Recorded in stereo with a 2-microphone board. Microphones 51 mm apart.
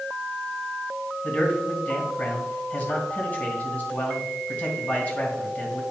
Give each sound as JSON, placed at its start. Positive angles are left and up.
{"t": 1.2, "sound": "a man speaking", "side_deg": 30, "distance_m": 2.5}